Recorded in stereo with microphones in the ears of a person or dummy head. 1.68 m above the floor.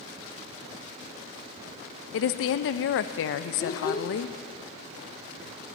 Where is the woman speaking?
65° left (ahead or behind), 0.5 m.